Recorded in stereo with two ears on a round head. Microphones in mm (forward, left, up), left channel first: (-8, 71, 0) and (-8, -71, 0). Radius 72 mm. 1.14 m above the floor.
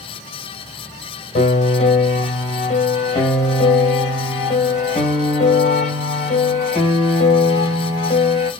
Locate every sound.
1.4 s a piano: 40° left (ahead or behind), 1.6 m